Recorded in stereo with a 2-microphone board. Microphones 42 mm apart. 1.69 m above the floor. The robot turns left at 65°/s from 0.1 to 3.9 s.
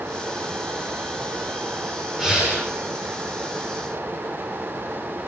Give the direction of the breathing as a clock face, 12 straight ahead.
12 o'clock.